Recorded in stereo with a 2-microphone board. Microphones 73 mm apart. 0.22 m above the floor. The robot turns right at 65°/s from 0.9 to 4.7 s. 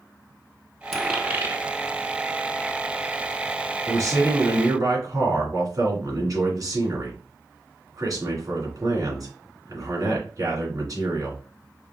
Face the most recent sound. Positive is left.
turn(degrees=-65)